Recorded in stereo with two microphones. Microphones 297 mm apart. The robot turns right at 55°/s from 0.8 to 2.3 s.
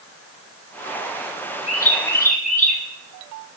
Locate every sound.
1.7 s a bird: 120° left, 1.7 m; by 2.8 s 155° left, 1.7 m